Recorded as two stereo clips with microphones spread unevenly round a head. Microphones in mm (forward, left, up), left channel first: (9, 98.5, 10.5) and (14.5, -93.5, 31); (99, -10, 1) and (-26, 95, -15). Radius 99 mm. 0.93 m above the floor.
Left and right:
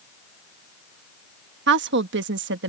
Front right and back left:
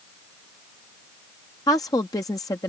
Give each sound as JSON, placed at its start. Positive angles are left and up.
{"t": 1.7, "sound": "a woman speaking", "azimuth_deg": -115}